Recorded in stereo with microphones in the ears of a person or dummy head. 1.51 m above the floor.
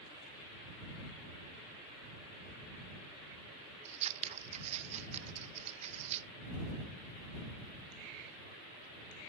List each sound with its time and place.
3.9 s scissors: 35° right (ahead or behind)